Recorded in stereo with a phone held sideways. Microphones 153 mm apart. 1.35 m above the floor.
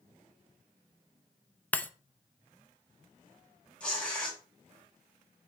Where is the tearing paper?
5° left (ahead or behind), 2.5 m.